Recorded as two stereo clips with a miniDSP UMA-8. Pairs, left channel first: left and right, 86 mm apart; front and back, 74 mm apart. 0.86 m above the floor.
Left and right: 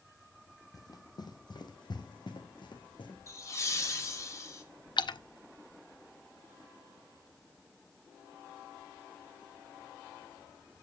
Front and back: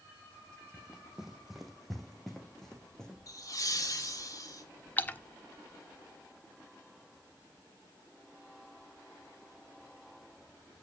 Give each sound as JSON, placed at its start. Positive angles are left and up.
{"t": 0.7, "sound": "running footsteps", "azimuth_deg": 105, "distance_m": 1.3}
{"t": 3.3, "sound": "laughter", "azimuth_deg": 35, "distance_m": 2.5}
{"t": 5.0, "sound": "a splash", "azimuth_deg": 65, "distance_m": 0.6}